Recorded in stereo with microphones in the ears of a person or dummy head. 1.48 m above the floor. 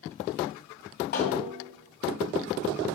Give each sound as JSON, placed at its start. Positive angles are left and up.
{"t": 1.1, "sound": "a snare drum", "side_deg": 45, "distance_m": 1.8}